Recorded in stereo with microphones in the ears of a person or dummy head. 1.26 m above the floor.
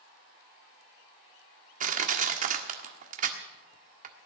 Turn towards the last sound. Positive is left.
turn(degrees=-45)  # may be behind; listen again after turning